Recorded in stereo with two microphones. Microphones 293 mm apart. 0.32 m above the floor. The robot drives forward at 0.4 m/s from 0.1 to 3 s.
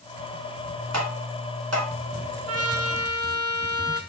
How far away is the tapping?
About 1.9 m.